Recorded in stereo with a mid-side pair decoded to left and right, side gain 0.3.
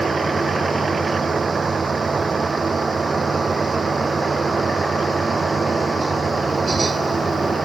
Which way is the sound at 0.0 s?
45° right.